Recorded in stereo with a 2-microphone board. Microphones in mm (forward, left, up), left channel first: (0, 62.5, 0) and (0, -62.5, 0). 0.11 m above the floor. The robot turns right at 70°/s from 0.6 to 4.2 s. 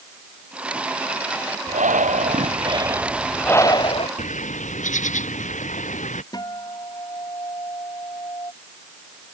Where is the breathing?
110° right; by 4.1 s 55° left.